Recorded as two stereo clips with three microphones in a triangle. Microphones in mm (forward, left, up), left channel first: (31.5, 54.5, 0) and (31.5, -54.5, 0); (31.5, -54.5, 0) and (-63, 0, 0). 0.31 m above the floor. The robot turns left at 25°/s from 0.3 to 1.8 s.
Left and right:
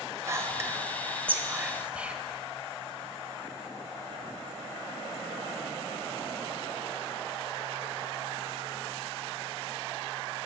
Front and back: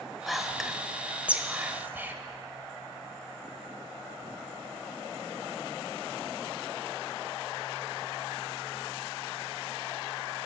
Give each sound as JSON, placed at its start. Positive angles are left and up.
{"t": 0.3, "sound": "whispering", "azimuth_deg": -120, "distance_m": 1.0}